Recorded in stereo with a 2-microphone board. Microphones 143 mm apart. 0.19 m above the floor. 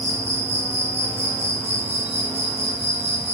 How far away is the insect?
About 1.1 m.